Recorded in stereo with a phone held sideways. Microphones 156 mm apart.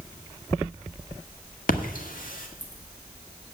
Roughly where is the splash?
Left.